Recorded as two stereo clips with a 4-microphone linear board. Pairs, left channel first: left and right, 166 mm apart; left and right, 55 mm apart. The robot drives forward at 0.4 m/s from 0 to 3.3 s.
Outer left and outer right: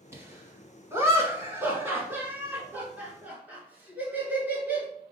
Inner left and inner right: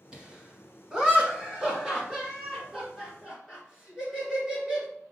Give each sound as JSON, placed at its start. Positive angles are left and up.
{"t": 0.1, "sound": "laughter", "side_deg": -15, "distance_m": 1.2}